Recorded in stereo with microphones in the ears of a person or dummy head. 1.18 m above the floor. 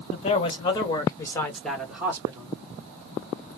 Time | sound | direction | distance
0.1 | a man speaking | 35° left (ahead or behind) | 1.7 m